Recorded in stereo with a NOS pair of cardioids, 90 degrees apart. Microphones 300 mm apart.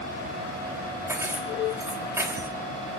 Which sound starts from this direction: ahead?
Keys jangling, at 1.1 s.